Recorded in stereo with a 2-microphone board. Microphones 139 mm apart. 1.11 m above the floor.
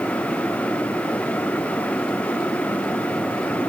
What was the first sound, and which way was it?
Only background noise.